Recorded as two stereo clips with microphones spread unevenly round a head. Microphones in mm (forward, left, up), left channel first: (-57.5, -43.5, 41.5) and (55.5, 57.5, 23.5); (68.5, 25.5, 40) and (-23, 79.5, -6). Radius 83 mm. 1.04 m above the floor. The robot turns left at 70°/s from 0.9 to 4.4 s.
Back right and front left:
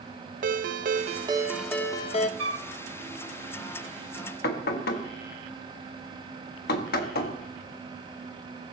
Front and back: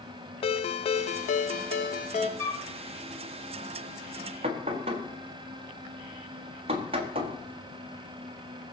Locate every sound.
0.4 s a ringtone: 5° left, 0.8 m; by 2.3 s 90° right, 0.8 m
2.4 s a flute: 30° left, 1.2 m; by 2.7 s 10° left, 1.2 m
4.4 s knocking: 165° right, 1.5 m